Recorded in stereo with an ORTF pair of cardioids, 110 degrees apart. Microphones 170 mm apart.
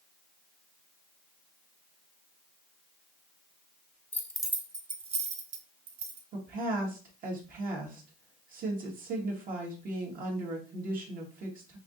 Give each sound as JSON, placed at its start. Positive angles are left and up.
{"t": 4.1, "sound": "keys jangling", "azimuth_deg": 15, "distance_m": 0.7}
{"t": 6.3, "sound": "a woman speaking", "azimuth_deg": -60, "distance_m": 1.6}